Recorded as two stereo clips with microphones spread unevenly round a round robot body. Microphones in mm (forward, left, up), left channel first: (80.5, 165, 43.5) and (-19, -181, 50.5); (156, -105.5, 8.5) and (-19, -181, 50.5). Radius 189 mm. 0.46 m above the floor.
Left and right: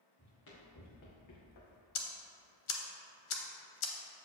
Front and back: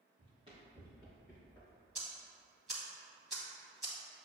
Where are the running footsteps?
130° left, 2 m; by 1.8 s 110° left, 1.5 m.